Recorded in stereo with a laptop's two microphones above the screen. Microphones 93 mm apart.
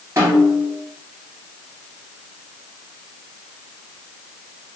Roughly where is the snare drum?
Right.